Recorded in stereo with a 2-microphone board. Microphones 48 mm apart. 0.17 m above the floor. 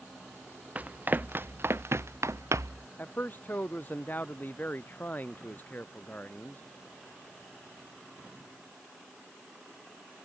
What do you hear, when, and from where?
0.8 s running footsteps: 35° right (ahead or behind); by 2.9 s 85° right
3.0 s a man speaking: 35° left (ahead or behind)